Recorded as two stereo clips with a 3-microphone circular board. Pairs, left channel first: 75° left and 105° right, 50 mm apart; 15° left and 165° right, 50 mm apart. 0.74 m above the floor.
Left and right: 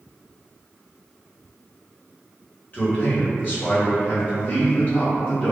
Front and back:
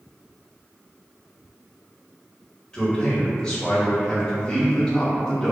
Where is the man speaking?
80° left, 1.3 m.